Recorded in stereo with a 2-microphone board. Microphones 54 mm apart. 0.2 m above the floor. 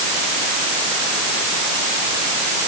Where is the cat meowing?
No cat meowing in this recording.